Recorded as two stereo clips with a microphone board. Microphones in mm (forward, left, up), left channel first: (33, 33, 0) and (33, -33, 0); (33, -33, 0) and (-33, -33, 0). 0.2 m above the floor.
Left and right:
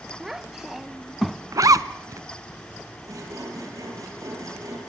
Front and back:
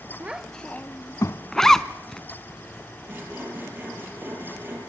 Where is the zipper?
80° right, 0.7 m.